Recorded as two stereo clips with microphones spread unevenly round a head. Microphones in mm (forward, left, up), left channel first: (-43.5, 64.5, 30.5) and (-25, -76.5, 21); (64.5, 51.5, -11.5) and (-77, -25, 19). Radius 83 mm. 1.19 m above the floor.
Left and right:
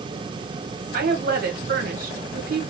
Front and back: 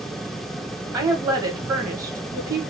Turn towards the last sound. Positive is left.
turn(degrees=-75)